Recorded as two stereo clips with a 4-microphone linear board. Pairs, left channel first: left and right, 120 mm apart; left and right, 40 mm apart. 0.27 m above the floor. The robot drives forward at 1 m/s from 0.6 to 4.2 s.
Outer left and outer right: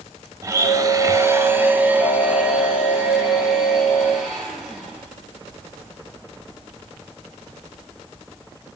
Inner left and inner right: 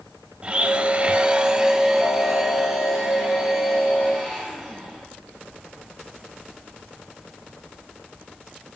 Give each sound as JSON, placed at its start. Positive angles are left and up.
{"t": 0.4, "sound": "a blender", "side_deg": -25, "distance_m": 0.7}